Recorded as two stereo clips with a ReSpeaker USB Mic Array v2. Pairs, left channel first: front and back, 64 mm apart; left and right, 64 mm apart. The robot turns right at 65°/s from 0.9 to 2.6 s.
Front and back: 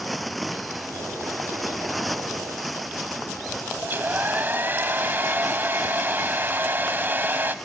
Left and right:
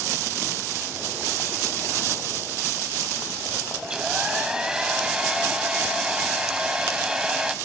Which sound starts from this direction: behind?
A hair dryer, at 3.8 s.